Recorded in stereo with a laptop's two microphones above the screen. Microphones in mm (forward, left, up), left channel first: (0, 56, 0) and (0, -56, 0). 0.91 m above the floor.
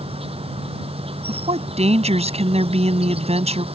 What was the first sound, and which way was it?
An insect, 60° right (ahead or behind).